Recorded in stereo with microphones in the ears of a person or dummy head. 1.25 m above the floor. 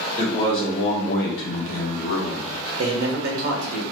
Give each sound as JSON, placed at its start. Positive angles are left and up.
{"t": 0.2, "sound": "a man speaking", "side_deg": 25, "distance_m": 1.1}
{"t": 2.8, "sound": "a man speaking", "side_deg": -55, "distance_m": 1.0}